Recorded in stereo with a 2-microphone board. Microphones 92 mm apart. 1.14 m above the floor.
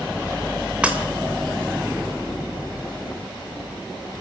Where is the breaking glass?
15° right (ahead or behind), 2.5 m.